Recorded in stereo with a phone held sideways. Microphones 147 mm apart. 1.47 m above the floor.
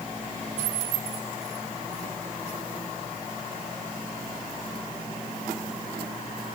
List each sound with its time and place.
Only background noise.